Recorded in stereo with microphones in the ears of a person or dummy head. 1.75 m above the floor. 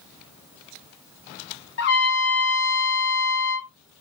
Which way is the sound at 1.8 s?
60° left (ahead or behind).